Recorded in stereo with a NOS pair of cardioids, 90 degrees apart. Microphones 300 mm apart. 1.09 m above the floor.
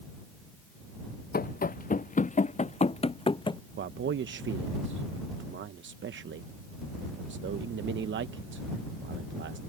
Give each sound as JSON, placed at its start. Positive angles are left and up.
{"t": 1.3, "sound": "running footsteps", "azimuth_deg": 30}
{"t": 3.8, "sound": "a man speaking", "azimuth_deg": -40}